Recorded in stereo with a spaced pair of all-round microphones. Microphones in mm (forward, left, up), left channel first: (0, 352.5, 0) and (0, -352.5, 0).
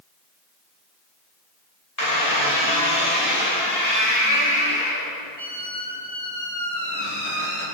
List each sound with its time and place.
2.0 s a squeak: 25° left (ahead or behind), 4.5 m